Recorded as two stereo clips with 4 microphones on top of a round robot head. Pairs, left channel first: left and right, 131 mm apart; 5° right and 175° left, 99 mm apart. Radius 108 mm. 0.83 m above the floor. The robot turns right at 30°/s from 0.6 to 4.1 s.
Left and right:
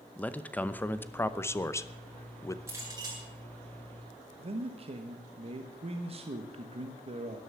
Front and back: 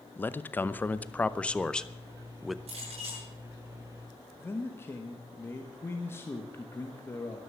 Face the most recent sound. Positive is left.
turn(degrees=-65)